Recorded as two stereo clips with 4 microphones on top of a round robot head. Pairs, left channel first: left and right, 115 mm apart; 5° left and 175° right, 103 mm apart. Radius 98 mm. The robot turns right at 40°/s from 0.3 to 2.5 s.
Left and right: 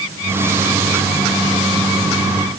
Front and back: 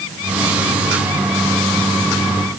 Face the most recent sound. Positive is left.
No sound to turn to.